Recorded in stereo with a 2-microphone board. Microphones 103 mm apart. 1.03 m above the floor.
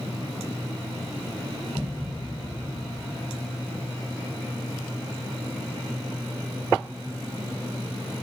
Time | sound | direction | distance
1.8 | a thud | 20° right (ahead or behind) | 2.5 m